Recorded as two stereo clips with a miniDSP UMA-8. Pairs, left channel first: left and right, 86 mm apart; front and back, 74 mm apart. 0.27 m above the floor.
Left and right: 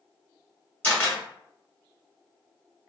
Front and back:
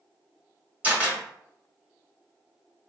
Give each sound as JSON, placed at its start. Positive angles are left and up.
{"t": 0.8, "sound": "a camera shutter", "azimuth_deg": 140, "distance_m": 1.4}